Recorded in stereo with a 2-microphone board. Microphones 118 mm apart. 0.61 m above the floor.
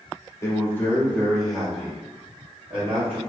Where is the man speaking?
25° left (ahead or behind), 1.0 m; by 3.2 s 20° right (ahead or behind), 1.6 m.